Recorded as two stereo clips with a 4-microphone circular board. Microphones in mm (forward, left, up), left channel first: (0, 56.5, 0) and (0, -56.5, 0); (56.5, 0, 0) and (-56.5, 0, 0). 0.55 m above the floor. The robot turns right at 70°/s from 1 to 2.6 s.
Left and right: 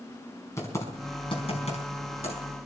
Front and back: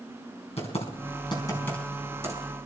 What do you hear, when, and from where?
0.6 s typing on a keyboard: 25° left, 4.5 m; by 2.4 s 125° left, 4.5 m